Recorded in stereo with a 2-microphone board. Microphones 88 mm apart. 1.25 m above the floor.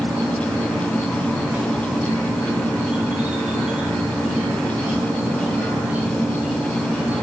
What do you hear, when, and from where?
0.0 s an insect: 15° right (ahead or behind), 1.2 m